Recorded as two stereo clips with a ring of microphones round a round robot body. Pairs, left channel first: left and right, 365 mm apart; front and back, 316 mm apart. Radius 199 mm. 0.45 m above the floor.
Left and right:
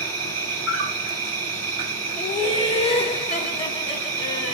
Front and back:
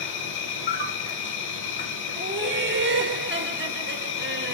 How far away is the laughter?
About 1.0 m.